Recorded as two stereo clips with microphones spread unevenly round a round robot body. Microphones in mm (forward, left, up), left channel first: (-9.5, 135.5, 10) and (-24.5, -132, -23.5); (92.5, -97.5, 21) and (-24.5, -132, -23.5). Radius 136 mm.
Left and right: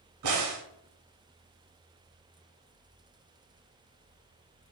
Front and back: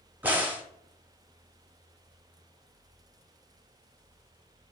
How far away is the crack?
About 0.9 m.